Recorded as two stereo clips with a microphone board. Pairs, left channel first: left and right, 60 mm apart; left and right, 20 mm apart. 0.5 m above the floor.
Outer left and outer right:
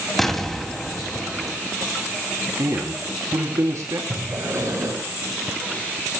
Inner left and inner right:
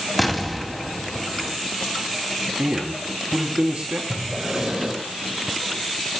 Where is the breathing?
55° right (ahead or behind), 7.5 m.